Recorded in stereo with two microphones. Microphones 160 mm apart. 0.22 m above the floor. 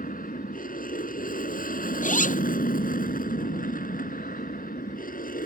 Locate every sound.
0.0 s an aircraft: 60° left (ahead or behind)
2.0 s a zipper: 55° left (ahead or behind)